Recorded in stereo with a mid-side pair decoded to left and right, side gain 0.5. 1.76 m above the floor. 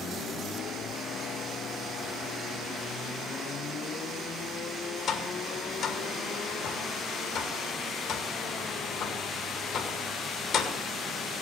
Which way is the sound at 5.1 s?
65° left.